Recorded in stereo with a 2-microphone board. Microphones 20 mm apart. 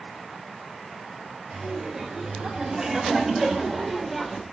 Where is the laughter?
35° right (ahead or behind), 4 m; by 4.4 s 10° left (ahead or behind), 2.5 m.